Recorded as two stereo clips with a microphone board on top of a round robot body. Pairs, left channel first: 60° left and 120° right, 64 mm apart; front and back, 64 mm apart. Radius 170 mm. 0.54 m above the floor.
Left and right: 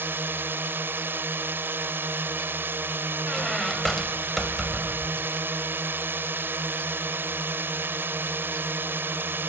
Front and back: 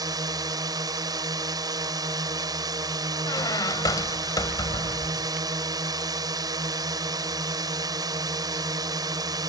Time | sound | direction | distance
0.0 | a drone | 175° right | ?
3.2 | a squeak | 25° right | ?